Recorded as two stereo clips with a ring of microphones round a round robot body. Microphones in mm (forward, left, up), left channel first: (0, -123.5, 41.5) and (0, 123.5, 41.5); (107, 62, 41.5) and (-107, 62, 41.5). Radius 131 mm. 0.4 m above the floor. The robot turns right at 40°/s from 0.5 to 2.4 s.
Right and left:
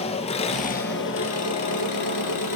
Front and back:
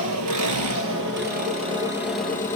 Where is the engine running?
155° right, 3 m; by 2.5 s 80° right, 3 m.